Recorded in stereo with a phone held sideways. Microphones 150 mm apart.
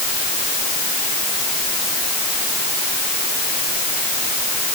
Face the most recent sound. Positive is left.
No sound to turn to.